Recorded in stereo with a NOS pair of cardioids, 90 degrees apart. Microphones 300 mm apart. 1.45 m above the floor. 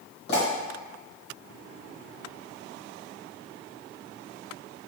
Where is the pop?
35° left, 2.0 m.